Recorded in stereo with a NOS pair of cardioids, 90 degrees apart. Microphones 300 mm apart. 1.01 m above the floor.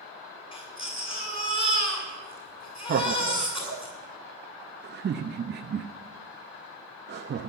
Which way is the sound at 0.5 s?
15° left.